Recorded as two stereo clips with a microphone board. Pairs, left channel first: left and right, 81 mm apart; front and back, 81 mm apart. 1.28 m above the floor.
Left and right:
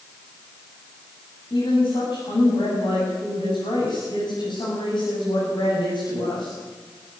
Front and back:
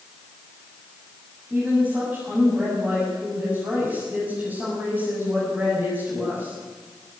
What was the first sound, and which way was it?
A woman speaking, 110° left.